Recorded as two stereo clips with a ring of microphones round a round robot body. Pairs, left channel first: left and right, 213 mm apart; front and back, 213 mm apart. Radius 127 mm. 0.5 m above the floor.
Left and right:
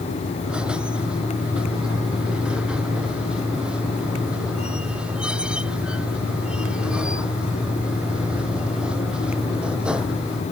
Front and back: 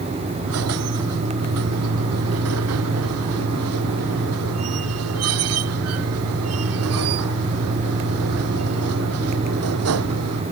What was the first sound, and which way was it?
A squeak, 175° right.